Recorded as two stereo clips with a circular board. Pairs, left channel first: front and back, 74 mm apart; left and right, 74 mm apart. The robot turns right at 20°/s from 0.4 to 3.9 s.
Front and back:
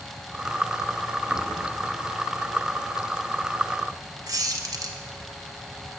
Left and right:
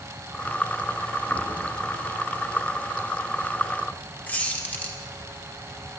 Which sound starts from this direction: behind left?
A squeak, at 4.3 s.